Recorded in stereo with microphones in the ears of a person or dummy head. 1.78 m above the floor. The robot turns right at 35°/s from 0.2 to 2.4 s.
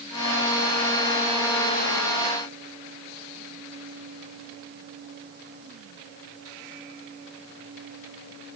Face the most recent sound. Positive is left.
No sound to turn to.